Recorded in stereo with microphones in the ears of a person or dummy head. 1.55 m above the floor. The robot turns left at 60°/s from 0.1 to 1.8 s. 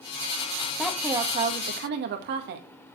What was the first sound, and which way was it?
A woman speaking, straight ahead.